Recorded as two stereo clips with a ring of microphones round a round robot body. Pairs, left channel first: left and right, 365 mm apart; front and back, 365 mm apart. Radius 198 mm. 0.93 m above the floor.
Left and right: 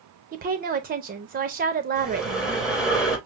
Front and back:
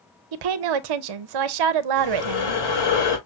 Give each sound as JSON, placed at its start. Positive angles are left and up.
{"t": 0.3, "sound": "a woman speaking", "azimuth_deg": -155, "distance_m": 0.5}
{"t": 1.9, "sound": "breathing", "azimuth_deg": 0, "distance_m": 3.0}